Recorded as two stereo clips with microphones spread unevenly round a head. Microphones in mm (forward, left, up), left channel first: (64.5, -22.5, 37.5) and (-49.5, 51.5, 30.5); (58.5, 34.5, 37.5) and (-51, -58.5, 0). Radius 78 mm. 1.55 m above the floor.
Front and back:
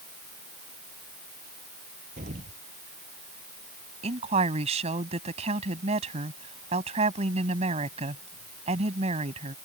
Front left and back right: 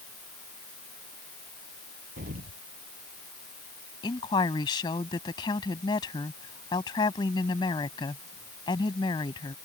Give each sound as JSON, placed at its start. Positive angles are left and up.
{"t": 2.2, "sound": "an explosion", "azimuth_deg": -175}
{"t": 4.0, "sound": "a woman speaking", "azimuth_deg": 100}